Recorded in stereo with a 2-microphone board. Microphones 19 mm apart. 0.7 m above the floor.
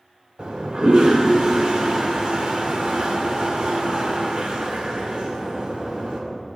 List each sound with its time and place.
0.4 s a toilet flushing: 50° right (ahead or behind), 2.0 m